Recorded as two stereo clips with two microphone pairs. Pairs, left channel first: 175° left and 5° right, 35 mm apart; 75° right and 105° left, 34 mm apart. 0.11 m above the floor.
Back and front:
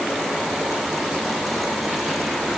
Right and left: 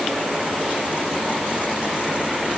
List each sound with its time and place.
Only background noise.